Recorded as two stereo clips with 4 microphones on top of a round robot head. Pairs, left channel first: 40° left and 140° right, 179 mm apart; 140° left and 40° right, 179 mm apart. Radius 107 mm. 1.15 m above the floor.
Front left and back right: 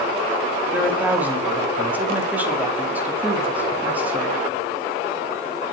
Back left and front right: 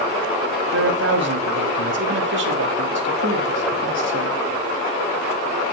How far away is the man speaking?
About 2.5 m.